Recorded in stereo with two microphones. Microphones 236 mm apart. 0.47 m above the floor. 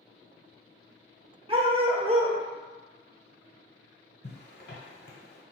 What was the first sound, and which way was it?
A dog barking, 25° right (ahead or behind).